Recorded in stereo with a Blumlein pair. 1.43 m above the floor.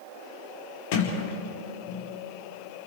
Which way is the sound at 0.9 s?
45° left.